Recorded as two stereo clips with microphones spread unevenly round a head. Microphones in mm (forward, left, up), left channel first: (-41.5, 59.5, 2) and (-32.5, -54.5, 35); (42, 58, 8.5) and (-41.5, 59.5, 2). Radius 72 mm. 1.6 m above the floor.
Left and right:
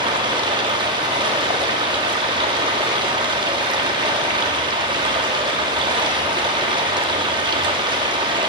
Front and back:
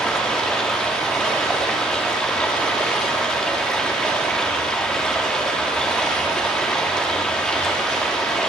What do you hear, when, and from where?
0.0 s running water: 75° right, 1.4 m